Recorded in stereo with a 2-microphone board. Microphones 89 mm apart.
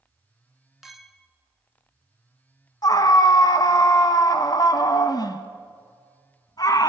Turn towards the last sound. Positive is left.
turn(degrees=45)  # may be behind; listen again after turning